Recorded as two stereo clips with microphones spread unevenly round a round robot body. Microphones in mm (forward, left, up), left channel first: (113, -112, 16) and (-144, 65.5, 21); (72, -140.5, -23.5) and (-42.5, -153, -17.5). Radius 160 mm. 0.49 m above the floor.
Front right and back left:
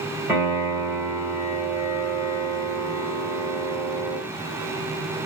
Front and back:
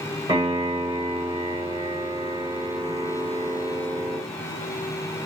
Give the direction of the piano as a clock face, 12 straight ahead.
4 o'clock.